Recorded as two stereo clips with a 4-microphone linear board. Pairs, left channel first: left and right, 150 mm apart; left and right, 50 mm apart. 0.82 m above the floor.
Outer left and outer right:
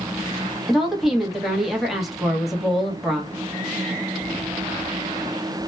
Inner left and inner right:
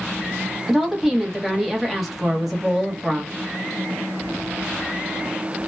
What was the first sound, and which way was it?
A woman speaking, centre (ahead or behind).